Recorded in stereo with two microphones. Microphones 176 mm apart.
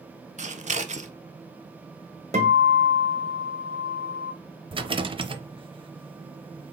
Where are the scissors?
45° right (ahead or behind), 0.6 m.